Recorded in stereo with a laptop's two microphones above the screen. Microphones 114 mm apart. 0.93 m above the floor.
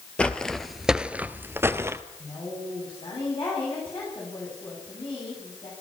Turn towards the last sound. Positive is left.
turn(degrees=50)  # may be behind; listen again after turning